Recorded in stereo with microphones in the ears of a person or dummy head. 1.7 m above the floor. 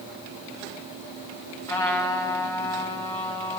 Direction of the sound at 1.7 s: 15° left (ahead or behind).